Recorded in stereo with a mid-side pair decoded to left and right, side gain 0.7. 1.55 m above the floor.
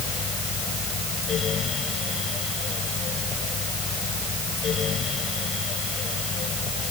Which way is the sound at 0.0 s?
35° left.